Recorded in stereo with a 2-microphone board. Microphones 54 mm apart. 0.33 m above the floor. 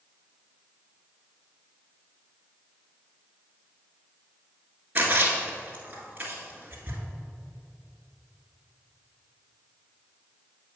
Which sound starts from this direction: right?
A splash, at 5.0 s.